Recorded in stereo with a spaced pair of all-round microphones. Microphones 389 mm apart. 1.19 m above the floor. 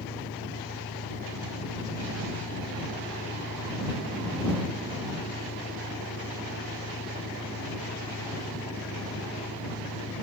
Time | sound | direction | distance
0.0 | an engine running | 45° left (ahead or behind) | ?